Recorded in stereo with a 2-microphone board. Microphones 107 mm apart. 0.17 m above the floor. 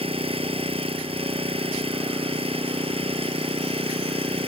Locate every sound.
0.0 s an engine running: 60° right (ahead or behind)